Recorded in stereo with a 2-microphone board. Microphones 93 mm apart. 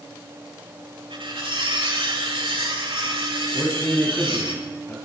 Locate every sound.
1.1 s cutlery clinking: 70° right (ahead or behind), 7.5 m
3.5 s a man speaking: 25° left (ahead or behind), 7.5 m